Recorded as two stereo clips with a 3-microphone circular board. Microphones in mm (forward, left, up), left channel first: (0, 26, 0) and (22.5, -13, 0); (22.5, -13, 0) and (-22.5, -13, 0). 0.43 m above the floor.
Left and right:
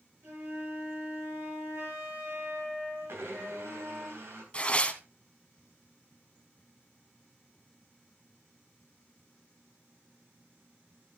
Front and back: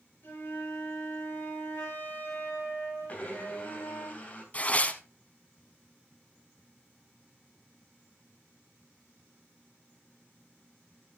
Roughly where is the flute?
Ahead right.